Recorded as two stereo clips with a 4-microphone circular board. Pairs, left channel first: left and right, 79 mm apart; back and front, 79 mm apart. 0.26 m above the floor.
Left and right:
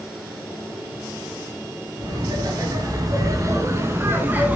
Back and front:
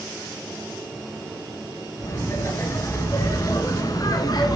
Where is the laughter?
120° right, 4 m; by 4.6 s 155° right, 2 m.